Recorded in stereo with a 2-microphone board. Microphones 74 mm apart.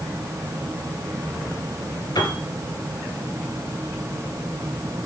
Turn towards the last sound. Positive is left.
turn(degrees=70)  # may be behind; listen again after turning